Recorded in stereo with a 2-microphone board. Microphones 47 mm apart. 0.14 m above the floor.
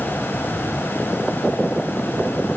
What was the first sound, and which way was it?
Only background noise.